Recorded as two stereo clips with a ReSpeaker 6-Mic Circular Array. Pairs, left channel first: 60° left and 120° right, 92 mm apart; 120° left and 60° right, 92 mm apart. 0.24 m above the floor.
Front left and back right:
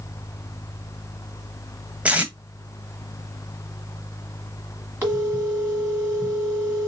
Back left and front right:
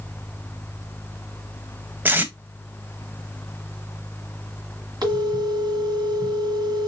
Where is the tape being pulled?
70° right, 0.6 m.